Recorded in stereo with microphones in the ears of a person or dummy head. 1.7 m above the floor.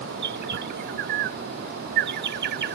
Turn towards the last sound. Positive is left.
turn(degrees=-50)  # may be behind; listen again after turning